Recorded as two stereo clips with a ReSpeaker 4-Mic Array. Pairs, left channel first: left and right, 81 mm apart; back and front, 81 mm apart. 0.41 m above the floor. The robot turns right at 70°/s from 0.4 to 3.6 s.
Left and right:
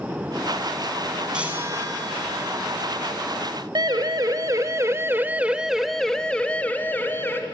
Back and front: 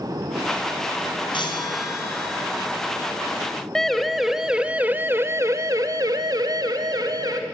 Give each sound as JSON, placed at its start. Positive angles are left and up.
{"t": 1.3, "sound": "a chime", "azimuth_deg": -170, "distance_m": 3.0}
{"t": 3.8, "sound": "a siren", "azimuth_deg": -95, "distance_m": 2.0}